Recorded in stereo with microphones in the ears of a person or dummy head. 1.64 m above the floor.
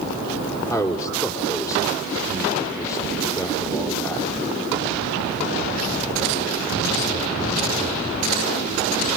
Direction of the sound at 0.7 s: 20° left (ahead or behind).